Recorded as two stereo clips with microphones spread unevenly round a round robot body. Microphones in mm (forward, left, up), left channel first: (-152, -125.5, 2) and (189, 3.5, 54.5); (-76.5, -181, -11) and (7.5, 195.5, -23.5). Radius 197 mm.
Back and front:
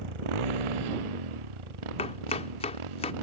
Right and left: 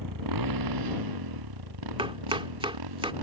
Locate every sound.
0.0 s a motorcycle: 35° left; by 3.2 s 40° left
2.0 s chopping: 145° left